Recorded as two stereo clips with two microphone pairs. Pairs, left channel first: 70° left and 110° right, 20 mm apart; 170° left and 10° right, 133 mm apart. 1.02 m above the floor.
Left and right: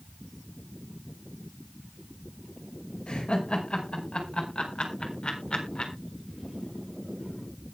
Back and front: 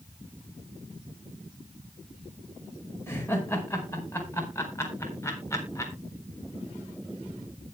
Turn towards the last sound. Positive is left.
turn(degrees=105)